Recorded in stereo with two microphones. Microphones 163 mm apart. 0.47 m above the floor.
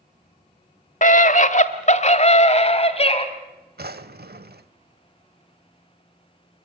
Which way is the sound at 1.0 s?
50° left (ahead or behind).